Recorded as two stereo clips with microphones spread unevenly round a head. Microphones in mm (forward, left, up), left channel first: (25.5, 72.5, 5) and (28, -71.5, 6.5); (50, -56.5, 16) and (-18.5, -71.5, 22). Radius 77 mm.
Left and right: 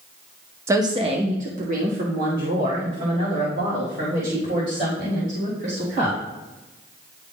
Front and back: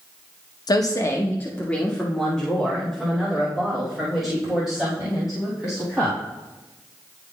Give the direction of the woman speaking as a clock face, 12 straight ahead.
1 o'clock.